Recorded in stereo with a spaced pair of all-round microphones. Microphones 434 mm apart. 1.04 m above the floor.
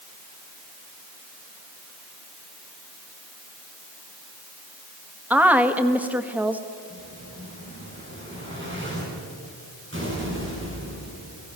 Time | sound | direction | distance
5.3 | a woman speaking | 5° right (ahead or behind) | 1.4 m
6.9 | an explosion | 25° right (ahead or behind) | 6.5 m